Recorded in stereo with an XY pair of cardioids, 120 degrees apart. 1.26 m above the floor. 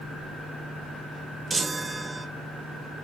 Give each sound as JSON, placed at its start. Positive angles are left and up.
{"t": 1.5, "sound": "a chime", "azimuth_deg": -20, "distance_m": 0.5}